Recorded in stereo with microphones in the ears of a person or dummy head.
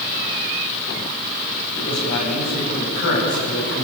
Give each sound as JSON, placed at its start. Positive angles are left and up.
{"t": 1.8, "sound": "a man speaking", "side_deg": 50, "distance_m": 9.0}